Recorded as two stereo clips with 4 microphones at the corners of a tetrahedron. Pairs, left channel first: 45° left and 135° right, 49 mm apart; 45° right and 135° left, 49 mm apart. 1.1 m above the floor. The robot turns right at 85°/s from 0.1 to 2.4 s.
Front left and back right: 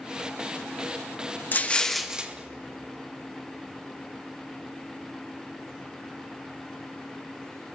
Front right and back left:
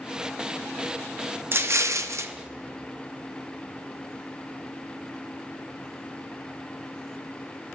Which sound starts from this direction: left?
An explosion, at 1.5 s.